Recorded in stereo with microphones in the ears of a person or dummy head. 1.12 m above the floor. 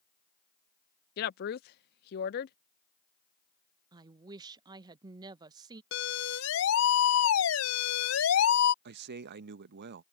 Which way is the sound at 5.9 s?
80° left.